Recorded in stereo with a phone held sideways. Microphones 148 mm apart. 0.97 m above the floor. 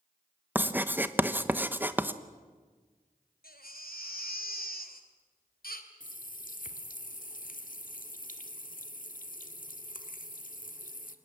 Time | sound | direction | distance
0.6 | writing | 15° right (ahead or behind) | 1.0 m
3.4 | a baby crying | 85° left | 2.5 m
6.0 | a running tap | 65° left (ahead or behind) | 1.6 m